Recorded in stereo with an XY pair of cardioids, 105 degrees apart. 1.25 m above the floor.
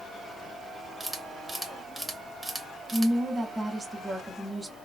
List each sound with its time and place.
1.0 s a camera shutter: 15° right, 1.0 m
2.9 s a woman speaking: 15° right, 1.4 m